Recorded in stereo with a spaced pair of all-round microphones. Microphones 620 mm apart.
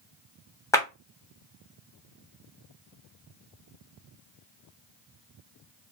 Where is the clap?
5° left (ahead or behind), 0.7 m.